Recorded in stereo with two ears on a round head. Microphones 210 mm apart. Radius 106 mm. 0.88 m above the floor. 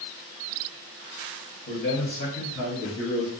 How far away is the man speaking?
About 1.1 m.